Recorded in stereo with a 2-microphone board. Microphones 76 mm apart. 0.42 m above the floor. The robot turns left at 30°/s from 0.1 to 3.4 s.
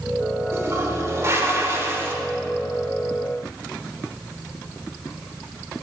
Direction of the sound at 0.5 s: 70° right.